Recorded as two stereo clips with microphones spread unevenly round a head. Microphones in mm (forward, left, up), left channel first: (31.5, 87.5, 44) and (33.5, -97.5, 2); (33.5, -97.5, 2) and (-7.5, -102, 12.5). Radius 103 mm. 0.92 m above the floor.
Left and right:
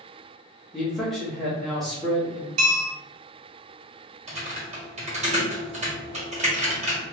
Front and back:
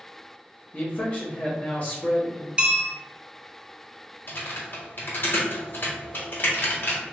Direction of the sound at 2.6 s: 115° right.